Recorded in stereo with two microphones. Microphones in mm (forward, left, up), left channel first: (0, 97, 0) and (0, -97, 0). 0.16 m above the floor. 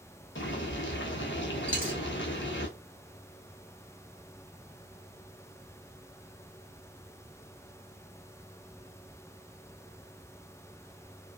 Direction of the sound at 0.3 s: 75° left (ahead or behind).